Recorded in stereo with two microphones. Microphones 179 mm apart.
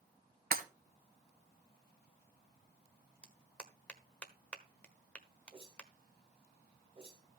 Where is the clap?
5° left (ahead or behind), 1.2 m.